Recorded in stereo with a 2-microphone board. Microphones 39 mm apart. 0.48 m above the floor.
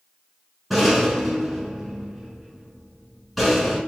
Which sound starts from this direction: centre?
A rattle, at 0.7 s.